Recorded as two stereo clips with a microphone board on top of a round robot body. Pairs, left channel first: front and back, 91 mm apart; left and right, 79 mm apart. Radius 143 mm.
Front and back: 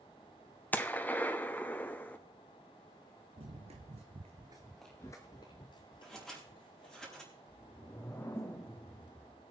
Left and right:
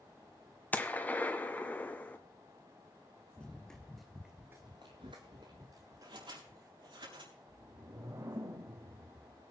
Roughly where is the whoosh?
Ahead right.